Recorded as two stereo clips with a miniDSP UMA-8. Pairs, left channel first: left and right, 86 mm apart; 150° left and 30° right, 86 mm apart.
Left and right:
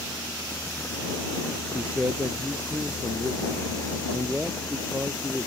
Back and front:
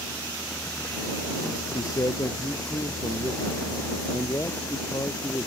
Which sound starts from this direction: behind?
A man speaking, at 1.7 s.